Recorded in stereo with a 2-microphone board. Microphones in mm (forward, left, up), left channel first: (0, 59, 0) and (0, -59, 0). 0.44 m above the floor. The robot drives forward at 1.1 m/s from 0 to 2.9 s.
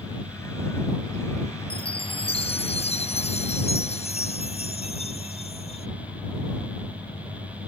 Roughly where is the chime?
Left.